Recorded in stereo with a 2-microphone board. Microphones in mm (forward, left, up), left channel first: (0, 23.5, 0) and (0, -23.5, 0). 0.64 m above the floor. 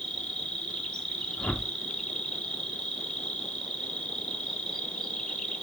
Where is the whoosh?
25° left (ahead or behind), 0.9 m.